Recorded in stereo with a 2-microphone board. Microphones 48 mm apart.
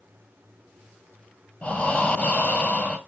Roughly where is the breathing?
Left.